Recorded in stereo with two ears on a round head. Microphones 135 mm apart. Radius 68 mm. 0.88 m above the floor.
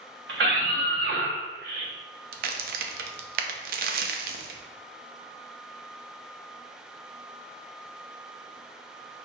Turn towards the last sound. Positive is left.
turn(degrees=-60)  # may be behind; listen again after turning